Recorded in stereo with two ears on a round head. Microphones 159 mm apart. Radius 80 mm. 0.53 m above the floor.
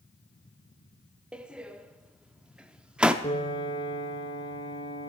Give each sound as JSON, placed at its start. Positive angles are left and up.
{"t": 1.3, "sound": "a door slam", "side_deg": -5, "distance_m": 0.6}
{"t": 3.2, "sound": "a piano", "side_deg": 25, "distance_m": 2.0}